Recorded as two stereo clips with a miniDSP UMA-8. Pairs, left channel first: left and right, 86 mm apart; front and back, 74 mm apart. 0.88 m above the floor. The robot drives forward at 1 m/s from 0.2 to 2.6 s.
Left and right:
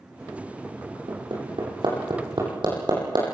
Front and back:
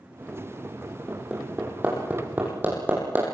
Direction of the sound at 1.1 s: 105° right.